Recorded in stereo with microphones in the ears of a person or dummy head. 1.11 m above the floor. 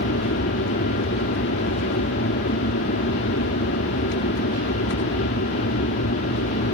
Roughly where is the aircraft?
Left.